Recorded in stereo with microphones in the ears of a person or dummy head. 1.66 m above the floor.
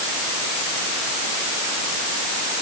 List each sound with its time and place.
Only background noise.